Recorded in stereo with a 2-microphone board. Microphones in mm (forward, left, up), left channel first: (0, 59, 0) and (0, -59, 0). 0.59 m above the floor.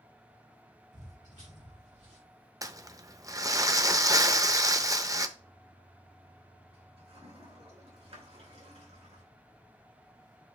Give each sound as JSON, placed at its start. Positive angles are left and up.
{"t": 0.9, "sound": "footsteps", "side_deg": -75, "distance_m": 2.5}
{"t": 2.6, "sound": "crumpling", "side_deg": -30, "distance_m": 0.6}
{"t": 5.4, "sound": "a toilet flushing", "side_deg": -55, "distance_m": 2.5}